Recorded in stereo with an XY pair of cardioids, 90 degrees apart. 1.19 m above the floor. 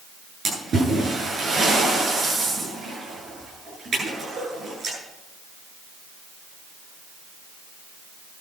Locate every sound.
0.5 s a splash: 55° right, 9.5 m